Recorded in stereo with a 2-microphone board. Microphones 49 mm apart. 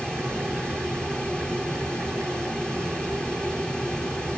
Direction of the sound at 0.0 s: 20° left (ahead or behind).